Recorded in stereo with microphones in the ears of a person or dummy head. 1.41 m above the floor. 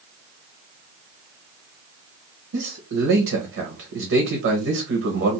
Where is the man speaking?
75° right (ahead or behind), 0.9 m.